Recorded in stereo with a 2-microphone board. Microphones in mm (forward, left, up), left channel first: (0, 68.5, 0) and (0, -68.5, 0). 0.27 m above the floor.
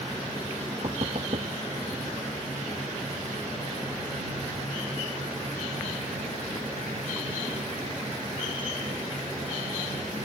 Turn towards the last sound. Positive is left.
turn(degrees=-45)  # may be behind; listen again after turning